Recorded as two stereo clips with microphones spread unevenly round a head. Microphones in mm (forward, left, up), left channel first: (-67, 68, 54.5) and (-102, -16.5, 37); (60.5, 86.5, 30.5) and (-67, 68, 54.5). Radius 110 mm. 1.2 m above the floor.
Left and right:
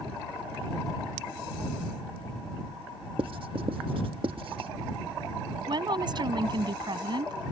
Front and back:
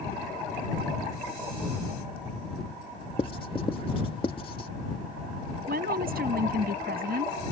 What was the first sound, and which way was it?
Writing, 60° right.